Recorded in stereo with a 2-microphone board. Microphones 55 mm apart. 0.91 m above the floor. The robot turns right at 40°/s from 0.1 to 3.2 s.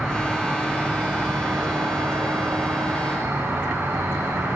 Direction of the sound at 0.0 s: 175° left.